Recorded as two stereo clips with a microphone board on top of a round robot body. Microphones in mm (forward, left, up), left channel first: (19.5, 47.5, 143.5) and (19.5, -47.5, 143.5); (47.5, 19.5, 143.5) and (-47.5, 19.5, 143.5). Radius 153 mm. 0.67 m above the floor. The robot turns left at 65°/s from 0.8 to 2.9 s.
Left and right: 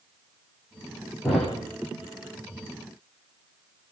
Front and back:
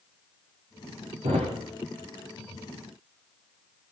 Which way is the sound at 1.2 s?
Straight behind.